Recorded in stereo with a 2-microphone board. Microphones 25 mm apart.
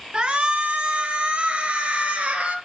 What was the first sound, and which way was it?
A shout, 40° right (ahead or behind).